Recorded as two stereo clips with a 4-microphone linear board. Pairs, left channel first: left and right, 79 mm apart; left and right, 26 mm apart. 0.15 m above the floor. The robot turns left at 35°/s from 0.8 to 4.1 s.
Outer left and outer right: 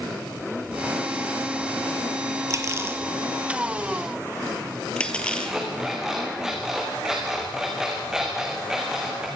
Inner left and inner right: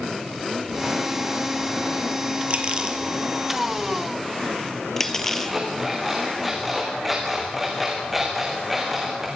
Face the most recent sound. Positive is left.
turn(degrees=-5)  # may be behind; listen again after turning